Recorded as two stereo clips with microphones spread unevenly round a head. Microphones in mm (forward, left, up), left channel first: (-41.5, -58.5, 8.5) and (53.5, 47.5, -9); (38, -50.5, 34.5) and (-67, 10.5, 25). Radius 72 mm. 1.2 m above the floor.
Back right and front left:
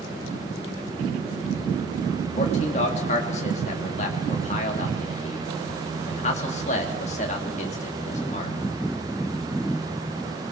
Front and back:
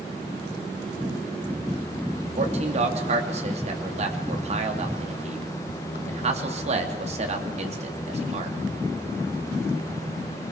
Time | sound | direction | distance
2.4 | a man speaking | straight behind | 3 m